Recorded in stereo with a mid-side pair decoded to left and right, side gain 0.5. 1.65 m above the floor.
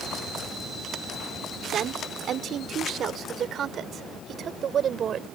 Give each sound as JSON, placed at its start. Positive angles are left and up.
{"t": 1.7, "sound": "a woman speaking", "azimuth_deg": -55}